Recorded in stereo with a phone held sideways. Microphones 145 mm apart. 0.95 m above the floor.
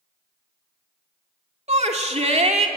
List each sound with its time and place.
1.7 s a shout: 50° right (ahead or behind), 2.5 m